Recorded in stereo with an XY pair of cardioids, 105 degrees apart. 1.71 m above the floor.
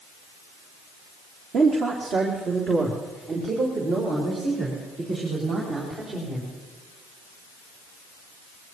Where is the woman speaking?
55° right, 1.8 m; by 6.5 s 60° right, 6.5 m.